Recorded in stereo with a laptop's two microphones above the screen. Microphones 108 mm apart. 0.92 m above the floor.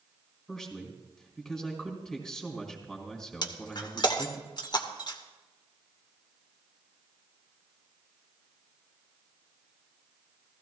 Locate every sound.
0.5 s a man speaking: 5° left (ahead or behind), 3 m
3.4 s breaking glass: 45° left (ahead or behind), 1.1 m